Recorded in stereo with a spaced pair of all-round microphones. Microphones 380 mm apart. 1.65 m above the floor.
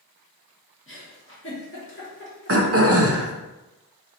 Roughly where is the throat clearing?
Right.